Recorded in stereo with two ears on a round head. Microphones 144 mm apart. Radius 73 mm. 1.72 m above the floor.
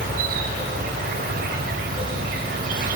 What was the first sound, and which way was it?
An insect, 55° right (ahead or behind).